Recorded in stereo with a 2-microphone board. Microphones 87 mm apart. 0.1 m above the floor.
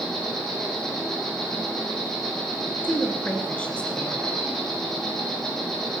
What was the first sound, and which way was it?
An insect, 5° left (ahead or behind).